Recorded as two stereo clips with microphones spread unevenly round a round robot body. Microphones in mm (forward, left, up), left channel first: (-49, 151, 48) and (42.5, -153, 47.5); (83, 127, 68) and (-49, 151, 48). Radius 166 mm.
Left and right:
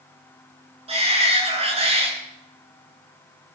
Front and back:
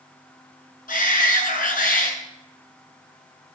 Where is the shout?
Straight ahead, 7.5 m.